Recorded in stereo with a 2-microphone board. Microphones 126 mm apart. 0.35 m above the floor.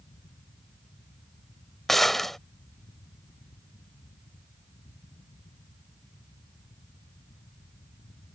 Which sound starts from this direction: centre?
A gunshot, at 1.9 s.